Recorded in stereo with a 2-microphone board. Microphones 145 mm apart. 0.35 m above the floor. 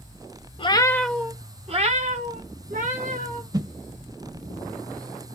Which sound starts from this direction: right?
A whoosh, at 3.5 s.